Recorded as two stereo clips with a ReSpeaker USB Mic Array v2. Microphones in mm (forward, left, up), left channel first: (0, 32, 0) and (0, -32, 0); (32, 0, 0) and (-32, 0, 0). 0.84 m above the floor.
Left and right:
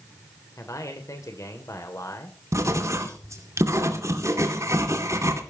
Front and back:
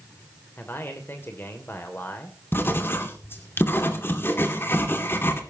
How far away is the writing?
About 2.5 m.